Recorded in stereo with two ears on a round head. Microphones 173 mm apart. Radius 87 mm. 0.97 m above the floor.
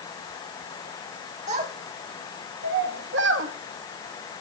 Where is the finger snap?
I don't hear a finger snap.